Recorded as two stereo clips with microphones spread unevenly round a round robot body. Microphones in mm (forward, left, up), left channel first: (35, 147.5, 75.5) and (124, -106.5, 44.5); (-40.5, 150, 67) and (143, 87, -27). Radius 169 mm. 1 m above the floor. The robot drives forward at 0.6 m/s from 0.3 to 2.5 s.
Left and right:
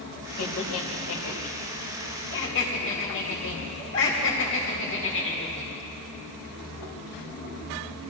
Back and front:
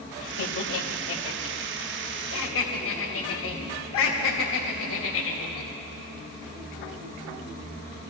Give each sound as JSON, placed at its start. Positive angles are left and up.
{"t": 0.4, "sound": "laughter", "azimuth_deg": 150, "distance_m": 1.5}